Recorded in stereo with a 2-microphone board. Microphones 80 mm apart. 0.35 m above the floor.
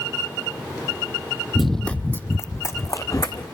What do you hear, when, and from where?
1.6 s running footsteps: 5° right (ahead or behind), 0.5 m; by 3.4 s 50° left (ahead or behind), 1.6 m